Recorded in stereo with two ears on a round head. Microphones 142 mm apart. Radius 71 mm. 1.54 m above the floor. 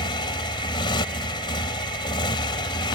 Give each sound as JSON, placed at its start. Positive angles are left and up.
{"t": 0.0, "sound": "a motorcycle", "side_deg": 30}